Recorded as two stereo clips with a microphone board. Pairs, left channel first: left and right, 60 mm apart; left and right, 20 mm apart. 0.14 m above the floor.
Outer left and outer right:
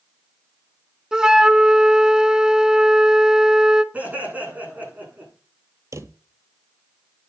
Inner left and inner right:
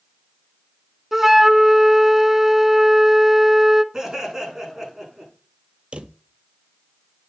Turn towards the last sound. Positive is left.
turn(degrees=-60)  # may be behind; listen again after turning